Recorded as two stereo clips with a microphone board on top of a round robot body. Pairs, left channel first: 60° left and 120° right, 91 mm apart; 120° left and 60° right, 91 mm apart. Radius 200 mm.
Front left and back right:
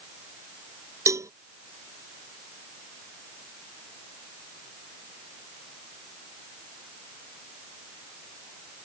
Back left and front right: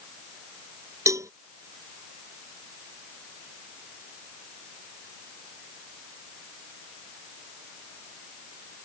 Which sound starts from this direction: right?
A cowbell, at 1.1 s.